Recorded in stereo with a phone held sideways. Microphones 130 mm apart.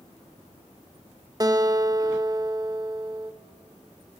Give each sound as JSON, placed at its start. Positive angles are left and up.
{"t": 1.4, "sound": "a guitar", "side_deg": -30, "distance_m": 0.6}